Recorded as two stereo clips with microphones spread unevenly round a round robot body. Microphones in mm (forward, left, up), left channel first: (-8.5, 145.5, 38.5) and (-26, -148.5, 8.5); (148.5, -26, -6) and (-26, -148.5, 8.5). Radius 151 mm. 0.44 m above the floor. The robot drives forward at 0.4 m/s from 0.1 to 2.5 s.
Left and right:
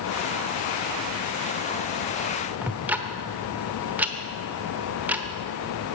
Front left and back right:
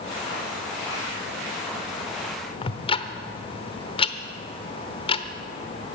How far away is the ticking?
About 1.0 m.